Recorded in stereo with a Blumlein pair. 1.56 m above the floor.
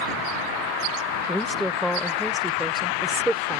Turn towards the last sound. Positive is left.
turn(degrees=-10)